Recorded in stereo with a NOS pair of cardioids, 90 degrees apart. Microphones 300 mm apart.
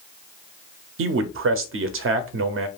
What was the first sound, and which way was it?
A man speaking, 45° right.